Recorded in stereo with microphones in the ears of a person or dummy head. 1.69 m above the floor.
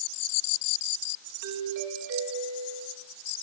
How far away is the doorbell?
About 4.5 m.